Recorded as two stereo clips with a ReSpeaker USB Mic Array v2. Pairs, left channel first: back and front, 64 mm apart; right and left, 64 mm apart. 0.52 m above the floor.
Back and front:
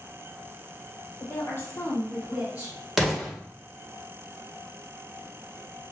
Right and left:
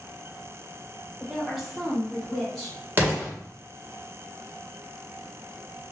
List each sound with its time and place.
1.2 s a woman speaking: 175° left, 1.4 m; by 2.8 s 5° right, 1.0 m
3.0 s an explosion: 85° left, 1.1 m